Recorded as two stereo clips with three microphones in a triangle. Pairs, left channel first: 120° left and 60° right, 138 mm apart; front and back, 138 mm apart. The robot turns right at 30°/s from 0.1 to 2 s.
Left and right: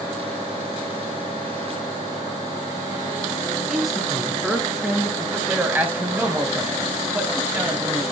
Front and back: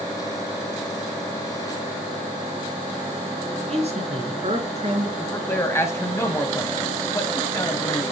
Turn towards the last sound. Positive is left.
turn(degrees=-10)